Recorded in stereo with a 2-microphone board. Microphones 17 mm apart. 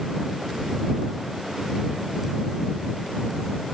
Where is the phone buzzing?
No phone buzzing in this recording.